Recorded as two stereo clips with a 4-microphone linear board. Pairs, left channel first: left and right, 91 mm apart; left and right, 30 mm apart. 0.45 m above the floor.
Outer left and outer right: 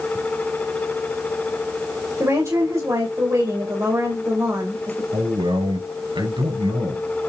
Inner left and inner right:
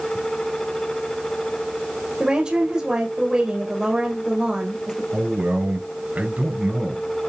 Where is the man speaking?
60° right (ahead or behind), 5.5 m.